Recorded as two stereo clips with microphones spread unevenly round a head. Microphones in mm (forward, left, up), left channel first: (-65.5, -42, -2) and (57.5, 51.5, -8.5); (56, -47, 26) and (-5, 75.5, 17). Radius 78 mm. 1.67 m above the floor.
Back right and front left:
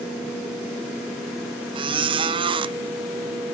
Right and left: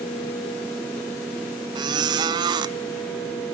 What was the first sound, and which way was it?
A squeak, 75° left.